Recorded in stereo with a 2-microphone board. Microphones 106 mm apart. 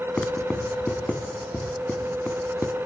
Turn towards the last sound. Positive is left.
turn(degrees=10)  # may be behind; listen again after turning